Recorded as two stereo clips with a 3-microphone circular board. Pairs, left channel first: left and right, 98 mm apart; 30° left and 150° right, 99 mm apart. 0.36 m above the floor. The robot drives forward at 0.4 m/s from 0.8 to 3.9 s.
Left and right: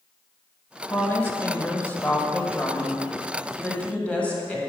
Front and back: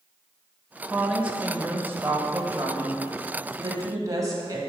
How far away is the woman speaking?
About 1.2 m.